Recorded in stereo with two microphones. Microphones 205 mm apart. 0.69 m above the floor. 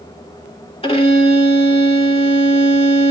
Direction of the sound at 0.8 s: 30° left (ahead or behind).